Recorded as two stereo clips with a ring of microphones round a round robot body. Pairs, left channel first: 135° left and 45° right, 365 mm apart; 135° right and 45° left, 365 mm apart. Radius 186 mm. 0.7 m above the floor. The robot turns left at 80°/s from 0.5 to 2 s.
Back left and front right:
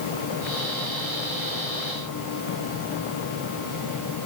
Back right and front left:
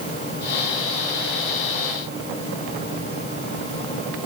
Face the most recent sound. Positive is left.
No sound to turn to.